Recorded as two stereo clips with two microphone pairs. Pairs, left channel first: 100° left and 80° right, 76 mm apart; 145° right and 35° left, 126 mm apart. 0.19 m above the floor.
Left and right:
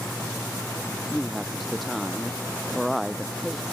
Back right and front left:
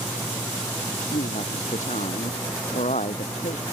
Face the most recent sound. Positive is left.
turn(degrees=-170)